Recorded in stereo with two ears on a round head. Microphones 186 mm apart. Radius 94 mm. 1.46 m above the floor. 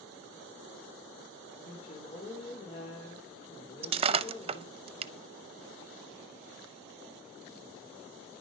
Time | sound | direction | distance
1.6 | a woman speaking | 30° left (ahead or behind) | 4.5 m
3.8 | breaking glass | 30° right (ahead or behind) | 0.8 m